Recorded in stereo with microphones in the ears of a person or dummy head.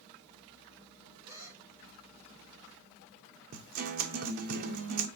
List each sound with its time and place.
1.2 s a gasp: 10° right (ahead or behind), 5 m
3.5 s a guitar: 45° right (ahead or behind), 0.7 m